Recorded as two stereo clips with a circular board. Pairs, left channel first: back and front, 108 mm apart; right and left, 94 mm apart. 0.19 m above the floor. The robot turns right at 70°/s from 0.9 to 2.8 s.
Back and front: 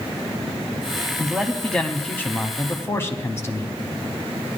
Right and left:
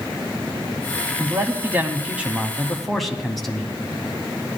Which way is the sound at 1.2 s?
70° left.